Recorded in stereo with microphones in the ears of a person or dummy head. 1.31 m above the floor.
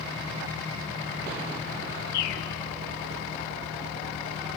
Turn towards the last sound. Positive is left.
turn(degrees=60)  # may be behind; listen again after turning